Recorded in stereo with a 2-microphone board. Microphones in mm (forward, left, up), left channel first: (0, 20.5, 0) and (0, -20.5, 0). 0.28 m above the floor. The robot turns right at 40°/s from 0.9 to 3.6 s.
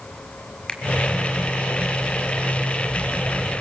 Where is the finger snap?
25° left (ahead or behind), 1.2 m.